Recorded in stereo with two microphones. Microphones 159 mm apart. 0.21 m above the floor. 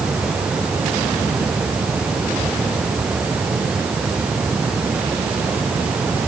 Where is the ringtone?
I don't hear a ringtone.